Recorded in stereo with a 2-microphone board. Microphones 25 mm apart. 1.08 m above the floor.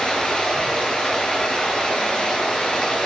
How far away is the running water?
About 7 m.